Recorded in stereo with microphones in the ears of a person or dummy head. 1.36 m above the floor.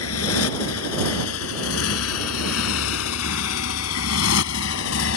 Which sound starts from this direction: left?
A motorcycle, at 0.0 s.